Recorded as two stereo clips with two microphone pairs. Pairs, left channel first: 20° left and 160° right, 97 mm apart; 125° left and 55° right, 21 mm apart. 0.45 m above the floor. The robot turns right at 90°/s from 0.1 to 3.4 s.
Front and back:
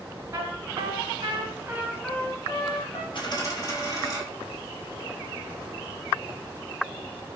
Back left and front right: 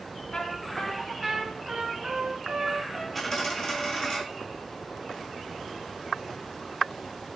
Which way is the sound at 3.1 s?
45° left.